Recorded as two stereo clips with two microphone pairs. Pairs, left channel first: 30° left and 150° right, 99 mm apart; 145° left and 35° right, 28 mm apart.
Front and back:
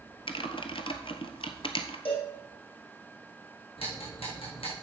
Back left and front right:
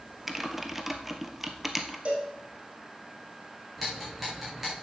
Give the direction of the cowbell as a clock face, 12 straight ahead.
12 o'clock.